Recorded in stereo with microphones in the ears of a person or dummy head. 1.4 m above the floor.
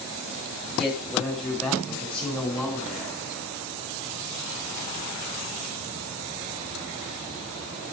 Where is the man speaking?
Centre (ahead or behind), 9.5 m; by 3.2 s 5° left (ahead or behind), 7.5 m.